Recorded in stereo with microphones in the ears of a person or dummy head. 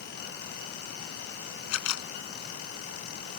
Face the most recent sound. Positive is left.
turn(degrees=75)  # may be behind; listen again after turning